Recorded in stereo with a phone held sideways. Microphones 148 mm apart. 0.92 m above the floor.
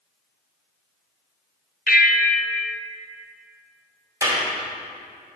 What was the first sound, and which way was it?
A bell, 80° left.